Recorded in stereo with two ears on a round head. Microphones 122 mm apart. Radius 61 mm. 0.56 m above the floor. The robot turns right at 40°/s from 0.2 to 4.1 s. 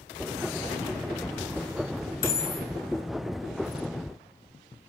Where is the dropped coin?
25° left (ahead or behind), 1.4 m; by 2.7 s 10° left (ahead or behind), 1.4 m.